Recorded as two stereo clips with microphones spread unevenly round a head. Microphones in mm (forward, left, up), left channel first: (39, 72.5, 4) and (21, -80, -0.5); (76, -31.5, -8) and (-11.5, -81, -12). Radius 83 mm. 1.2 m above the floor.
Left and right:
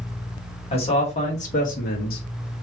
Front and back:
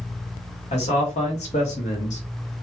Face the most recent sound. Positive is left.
turn(degrees=60)